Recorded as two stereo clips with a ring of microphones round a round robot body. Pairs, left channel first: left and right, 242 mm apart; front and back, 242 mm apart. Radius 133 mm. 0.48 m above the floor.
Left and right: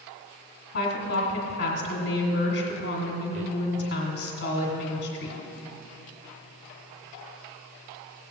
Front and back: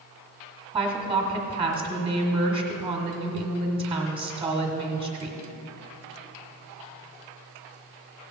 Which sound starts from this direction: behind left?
A woman speaking, at 0.7 s.